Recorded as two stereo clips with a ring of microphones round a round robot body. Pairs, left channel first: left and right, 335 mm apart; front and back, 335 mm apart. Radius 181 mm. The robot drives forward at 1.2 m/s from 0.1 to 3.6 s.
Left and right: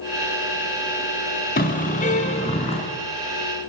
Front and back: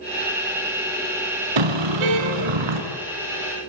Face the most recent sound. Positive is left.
turn(degrees=170)